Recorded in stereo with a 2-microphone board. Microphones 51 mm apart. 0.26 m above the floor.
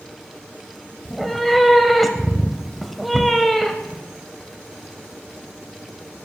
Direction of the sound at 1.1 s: Centre (ahead or behind).